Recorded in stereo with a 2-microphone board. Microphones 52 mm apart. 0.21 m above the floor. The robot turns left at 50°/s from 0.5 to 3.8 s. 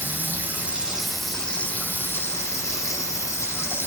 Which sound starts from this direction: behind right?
Running water, at 0.0 s.